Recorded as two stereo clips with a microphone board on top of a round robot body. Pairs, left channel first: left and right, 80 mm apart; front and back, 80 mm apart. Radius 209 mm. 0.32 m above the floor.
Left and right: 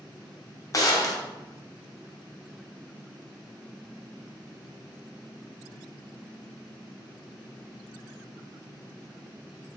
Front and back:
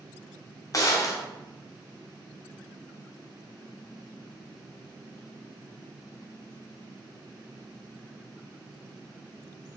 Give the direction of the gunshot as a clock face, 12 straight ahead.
11 o'clock.